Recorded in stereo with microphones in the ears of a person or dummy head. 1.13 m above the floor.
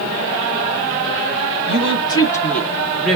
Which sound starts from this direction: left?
A woman speaking, at 1.7 s.